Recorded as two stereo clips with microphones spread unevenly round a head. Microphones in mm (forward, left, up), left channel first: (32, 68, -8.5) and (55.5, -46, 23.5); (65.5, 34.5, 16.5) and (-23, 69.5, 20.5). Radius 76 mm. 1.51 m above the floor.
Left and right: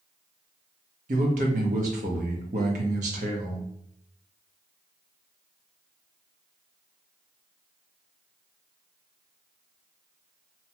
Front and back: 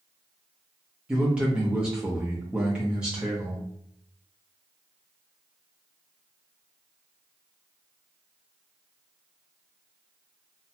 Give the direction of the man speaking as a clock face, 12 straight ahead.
4 o'clock.